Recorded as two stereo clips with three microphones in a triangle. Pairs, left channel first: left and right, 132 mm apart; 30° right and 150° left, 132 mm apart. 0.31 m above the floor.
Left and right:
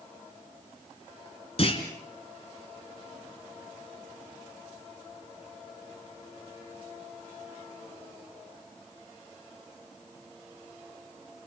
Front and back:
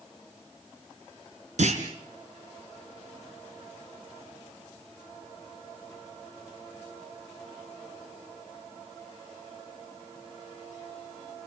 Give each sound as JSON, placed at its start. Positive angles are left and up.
{"t": 1.6, "sound": "a clunk", "azimuth_deg": 130, "distance_m": 2.5}